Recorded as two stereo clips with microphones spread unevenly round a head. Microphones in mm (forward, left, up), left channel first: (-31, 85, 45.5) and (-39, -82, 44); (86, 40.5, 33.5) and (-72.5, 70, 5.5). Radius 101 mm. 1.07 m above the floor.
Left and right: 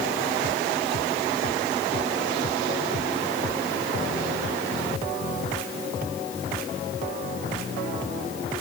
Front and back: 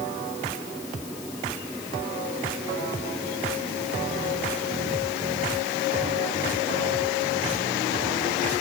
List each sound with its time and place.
Only background noise.